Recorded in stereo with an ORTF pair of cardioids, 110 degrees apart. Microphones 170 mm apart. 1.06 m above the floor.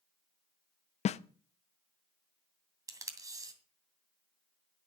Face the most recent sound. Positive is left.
turn(degrees=-20)